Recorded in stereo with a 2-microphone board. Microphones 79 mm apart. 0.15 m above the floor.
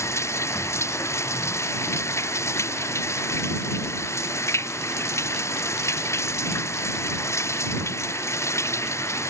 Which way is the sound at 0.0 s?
35° left (ahead or behind).